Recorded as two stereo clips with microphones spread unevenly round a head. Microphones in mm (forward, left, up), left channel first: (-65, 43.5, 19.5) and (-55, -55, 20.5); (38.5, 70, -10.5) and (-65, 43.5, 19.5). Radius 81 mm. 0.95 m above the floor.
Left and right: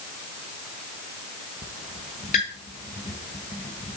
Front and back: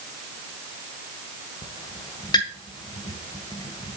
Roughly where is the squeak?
Left.